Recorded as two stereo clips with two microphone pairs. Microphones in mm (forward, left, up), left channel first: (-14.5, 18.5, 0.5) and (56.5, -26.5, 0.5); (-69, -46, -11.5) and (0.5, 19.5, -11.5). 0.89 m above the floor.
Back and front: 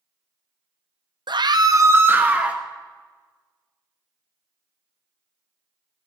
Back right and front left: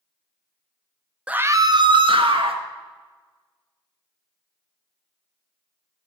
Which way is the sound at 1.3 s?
35° right.